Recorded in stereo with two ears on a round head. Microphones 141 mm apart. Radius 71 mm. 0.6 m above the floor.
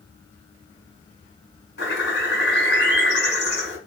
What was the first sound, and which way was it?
A bird, 80° left.